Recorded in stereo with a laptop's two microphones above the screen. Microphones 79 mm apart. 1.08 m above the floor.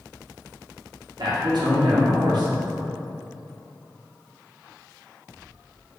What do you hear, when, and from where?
1.2 s a man speaking: 60° right (ahead or behind), 0.8 m